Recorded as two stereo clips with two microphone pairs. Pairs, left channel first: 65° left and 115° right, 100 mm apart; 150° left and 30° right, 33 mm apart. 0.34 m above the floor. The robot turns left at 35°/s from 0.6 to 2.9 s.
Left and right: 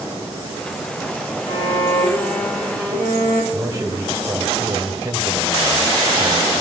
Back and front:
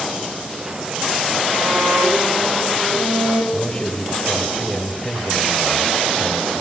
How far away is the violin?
About 5.5 m.